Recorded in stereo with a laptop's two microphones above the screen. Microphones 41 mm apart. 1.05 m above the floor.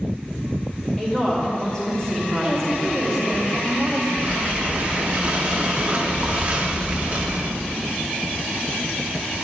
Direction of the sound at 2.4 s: Centre (ahead or behind).